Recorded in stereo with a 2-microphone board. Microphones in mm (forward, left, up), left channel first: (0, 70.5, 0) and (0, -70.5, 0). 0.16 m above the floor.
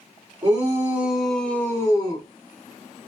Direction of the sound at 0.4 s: 30° right (ahead or behind).